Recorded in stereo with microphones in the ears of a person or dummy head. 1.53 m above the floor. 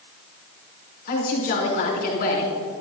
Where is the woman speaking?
50° left (ahead or behind), 4.5 m.